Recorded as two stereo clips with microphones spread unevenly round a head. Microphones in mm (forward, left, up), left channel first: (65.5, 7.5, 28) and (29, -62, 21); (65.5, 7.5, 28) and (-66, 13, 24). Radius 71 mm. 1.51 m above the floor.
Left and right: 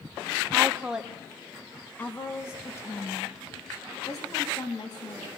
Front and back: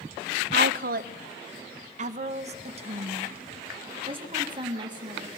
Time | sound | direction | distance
0.5 | a woman speaking | 165° left | 1.4 m